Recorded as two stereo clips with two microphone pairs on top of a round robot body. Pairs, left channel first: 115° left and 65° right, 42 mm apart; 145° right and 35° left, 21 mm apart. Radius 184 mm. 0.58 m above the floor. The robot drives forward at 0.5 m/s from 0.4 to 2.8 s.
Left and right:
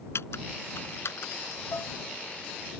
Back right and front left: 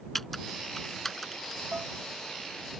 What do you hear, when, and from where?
0.1 s typing on a keyboard: 135° left; by 1.6 s 140° left
1.7 s dishes clattering: 95° left; by 2.0 s 100° left